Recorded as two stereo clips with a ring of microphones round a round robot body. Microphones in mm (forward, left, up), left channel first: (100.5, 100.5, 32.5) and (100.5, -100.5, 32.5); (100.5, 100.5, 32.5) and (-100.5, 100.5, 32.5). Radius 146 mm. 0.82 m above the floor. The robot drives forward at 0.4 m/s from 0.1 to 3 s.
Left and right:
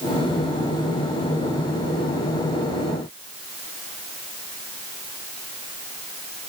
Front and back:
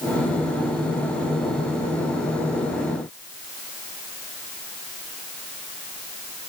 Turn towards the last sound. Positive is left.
No sound to turn to.